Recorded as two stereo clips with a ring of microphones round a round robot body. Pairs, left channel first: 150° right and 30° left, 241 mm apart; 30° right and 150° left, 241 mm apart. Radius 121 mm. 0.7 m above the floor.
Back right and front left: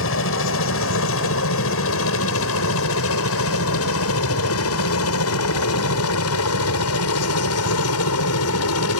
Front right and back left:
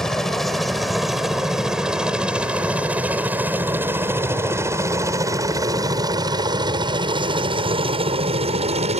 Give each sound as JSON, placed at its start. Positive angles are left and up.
{"t": 0.0, "sound": "a helicopter", "azimuth_deg": -120}